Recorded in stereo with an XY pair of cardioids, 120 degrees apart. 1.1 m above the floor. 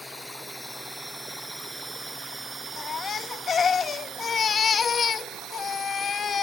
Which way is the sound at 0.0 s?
Straight ahead.